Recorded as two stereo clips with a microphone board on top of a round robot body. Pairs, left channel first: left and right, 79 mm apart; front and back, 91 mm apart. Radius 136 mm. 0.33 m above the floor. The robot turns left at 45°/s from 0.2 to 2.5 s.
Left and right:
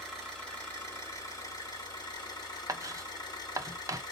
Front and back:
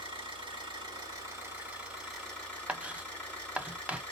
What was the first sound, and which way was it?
An engine running, 175° left.